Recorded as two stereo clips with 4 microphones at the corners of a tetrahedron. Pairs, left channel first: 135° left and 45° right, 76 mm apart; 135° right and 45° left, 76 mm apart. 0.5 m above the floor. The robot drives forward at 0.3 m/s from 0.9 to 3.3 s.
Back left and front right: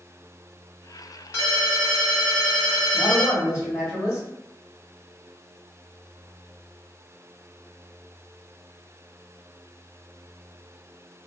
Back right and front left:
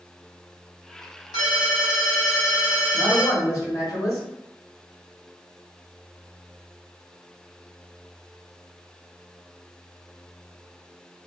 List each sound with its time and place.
1.3 s a ringtone: 170° right, 1.9 m
2.9 s a man speaking: 170° right, 2.0 m